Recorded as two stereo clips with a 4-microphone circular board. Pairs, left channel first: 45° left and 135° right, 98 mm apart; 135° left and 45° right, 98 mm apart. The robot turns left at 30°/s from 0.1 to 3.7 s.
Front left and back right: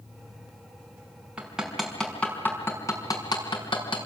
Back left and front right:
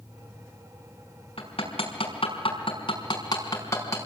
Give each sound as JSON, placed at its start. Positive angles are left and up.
{"t": 1.4, "sound": "hammering", "azimuth_deg": 145, "distance_m": 5.0}